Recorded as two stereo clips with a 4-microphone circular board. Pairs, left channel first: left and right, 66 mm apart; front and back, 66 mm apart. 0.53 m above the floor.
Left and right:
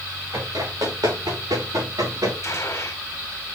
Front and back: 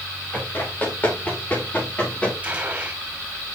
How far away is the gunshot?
About 2 m.